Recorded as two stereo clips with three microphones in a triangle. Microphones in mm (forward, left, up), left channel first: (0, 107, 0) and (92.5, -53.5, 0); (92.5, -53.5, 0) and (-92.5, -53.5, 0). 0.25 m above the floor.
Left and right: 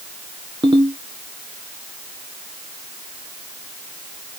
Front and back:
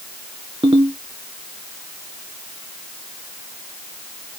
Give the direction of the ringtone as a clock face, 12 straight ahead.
4 o'clock.